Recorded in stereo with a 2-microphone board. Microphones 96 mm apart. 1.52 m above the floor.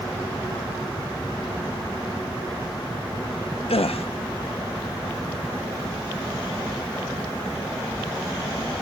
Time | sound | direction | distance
3.7 | a gasp | 85° left | 0.5 m